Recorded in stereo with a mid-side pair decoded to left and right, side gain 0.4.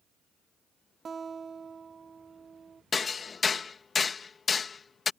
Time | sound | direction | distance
1.1 | a guitar | 45° right | ?
2.9 | hammering | 45° left | ?